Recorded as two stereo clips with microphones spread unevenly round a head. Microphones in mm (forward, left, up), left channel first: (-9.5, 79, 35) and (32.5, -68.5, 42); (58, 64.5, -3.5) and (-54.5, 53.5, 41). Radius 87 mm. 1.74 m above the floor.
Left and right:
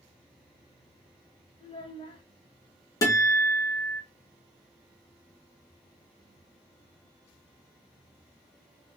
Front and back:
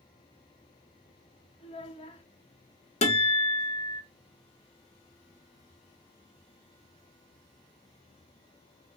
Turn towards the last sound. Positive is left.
turn(degrees=40)